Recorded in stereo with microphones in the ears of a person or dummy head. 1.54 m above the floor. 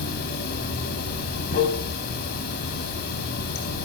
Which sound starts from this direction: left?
Running water, at 0.0 s.